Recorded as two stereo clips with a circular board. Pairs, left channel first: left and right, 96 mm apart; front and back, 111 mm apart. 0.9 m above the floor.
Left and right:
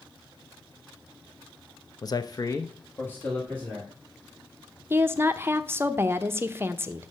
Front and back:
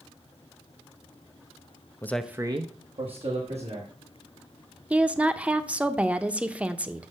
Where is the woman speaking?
115° right, 0.6 m.